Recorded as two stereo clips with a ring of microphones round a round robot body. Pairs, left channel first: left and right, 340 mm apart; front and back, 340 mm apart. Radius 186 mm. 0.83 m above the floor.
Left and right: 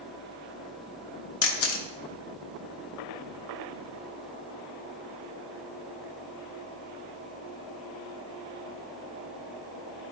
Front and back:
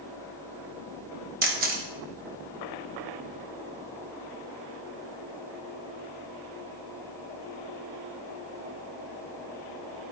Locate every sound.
1.4 s a camera shutter: 125° left, 1.0 m